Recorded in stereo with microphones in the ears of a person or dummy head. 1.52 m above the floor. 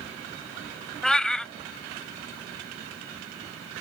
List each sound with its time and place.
1.0 s a cat meowing: centre (ahead or behind)